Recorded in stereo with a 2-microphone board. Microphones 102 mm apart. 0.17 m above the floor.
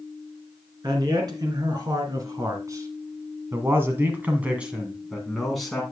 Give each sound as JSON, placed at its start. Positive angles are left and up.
{"t": 0.8, "sound": "a man speaking", "side_deg": -45, "distance_m": 2.5}